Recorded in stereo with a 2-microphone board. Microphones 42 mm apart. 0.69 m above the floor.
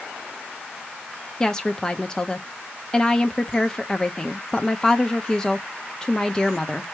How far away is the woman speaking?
About 0.5 m.